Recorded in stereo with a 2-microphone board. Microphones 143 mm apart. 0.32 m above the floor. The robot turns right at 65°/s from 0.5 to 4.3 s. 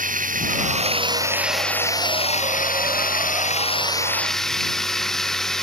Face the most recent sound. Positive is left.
turn(degrees=180)